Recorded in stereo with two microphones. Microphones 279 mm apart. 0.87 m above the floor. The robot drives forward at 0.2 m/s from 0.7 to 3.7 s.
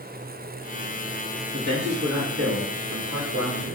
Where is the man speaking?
65° right (ahead or behind), 1.1 m; by 3.8 s 55° right (ahead or behind), 1.2 m.